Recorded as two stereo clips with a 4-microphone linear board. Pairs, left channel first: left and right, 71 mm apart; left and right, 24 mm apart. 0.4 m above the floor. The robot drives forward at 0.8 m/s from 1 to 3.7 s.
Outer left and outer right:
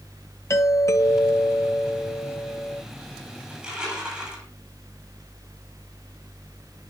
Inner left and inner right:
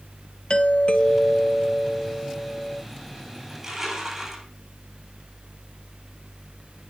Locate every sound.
0.5 s a doorbell: 45° left (ahead or behind), 1.8 m; by 2.8 s 30° left (ahead or behind), 2.5 m
3.5 s crushing: 10° right (ahead or behind), 9.5 m